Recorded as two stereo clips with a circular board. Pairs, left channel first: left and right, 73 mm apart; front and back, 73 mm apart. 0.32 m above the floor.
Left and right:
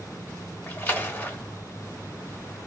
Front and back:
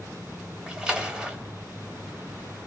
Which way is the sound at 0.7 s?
110° left.